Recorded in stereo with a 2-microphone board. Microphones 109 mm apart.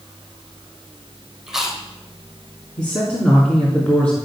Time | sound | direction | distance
1.5 | chewing | 5° right (ahead or behind) | 2.5 m
2.8 | a man speaking | 10° left (ahead or behind) | 2.5 m